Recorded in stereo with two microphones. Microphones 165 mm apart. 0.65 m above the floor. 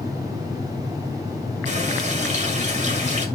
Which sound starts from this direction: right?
A running tap, at 1.7 s.